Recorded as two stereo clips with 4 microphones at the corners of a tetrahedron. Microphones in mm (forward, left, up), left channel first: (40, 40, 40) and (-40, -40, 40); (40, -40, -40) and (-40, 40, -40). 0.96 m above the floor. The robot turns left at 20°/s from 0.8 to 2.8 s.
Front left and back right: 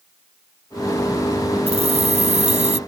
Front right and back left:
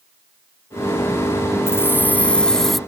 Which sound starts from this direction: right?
Keys jangling, at 1.7 s.